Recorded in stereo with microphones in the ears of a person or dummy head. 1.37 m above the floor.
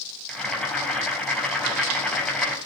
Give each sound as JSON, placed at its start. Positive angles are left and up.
{"t": 0.3, "sound": "boiling", "side_deg": 5, "distance_m": 4.0}